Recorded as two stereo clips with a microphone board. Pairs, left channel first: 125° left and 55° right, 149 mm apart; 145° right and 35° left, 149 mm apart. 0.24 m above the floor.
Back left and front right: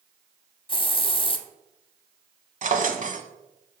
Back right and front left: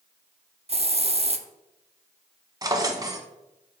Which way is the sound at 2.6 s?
30° right.